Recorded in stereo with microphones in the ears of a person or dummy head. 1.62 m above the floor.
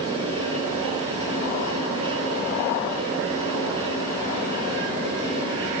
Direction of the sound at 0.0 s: 30° right (ahead or behind).